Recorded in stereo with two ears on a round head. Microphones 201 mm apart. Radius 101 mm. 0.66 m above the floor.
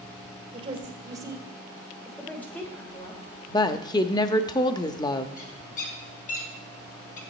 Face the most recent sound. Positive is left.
turn(degrees=40)  # may be behind; listen again after turning